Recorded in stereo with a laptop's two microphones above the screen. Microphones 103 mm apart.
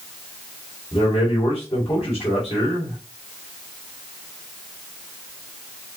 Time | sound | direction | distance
0.9 | a man speaking | 65° left (ahead or behind) | 2.0 m